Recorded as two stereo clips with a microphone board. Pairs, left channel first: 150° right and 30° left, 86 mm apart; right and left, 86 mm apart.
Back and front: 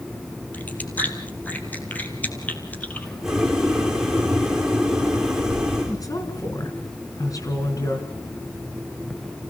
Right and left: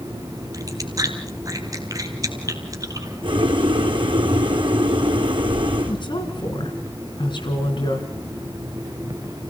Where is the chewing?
135° left, 2.5 m.